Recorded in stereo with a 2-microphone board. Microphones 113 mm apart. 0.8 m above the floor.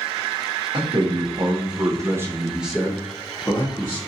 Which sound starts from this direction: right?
A man speaking, at 0.7 s.